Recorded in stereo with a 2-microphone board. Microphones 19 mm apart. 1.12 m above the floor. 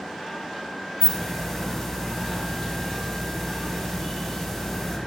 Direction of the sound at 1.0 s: 15° left (ahead or behind).